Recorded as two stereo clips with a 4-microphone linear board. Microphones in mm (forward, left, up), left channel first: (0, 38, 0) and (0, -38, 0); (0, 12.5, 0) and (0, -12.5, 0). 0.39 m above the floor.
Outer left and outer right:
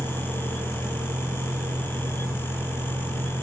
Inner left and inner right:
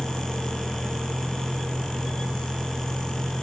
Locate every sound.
0.0 s a vehicle: 65° right (ahead or behind); by 3.4 s 75° right (ahead or behind)